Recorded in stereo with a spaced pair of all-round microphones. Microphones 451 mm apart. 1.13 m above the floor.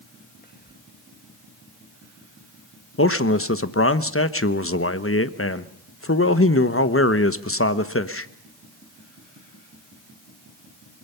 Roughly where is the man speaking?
Left.